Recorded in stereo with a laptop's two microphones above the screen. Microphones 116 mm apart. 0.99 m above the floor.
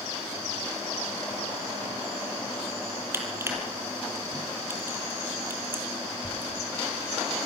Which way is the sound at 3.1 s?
20° right (ahead or behind).